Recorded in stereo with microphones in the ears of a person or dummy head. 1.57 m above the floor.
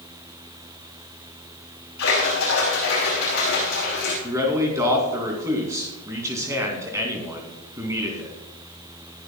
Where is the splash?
60° left (ahead or behind), 5 m.